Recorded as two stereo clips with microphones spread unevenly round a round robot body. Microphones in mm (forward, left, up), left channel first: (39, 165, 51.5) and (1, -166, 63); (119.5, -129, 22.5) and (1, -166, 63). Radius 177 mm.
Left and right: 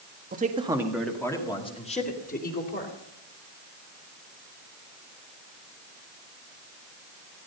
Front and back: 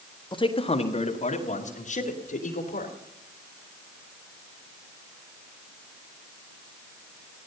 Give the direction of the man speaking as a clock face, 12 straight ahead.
1 o'clock.